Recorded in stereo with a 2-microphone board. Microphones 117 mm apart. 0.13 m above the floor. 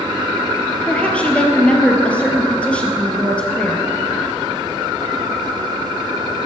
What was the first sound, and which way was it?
A woman speaking, 10° left (ahead or behind).